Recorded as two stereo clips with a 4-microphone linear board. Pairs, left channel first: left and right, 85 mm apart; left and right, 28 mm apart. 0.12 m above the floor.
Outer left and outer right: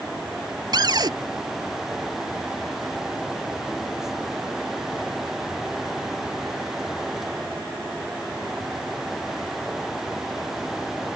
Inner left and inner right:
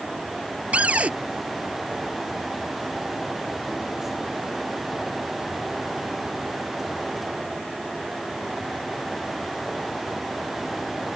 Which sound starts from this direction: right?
A cupboard door, at 0.7 s.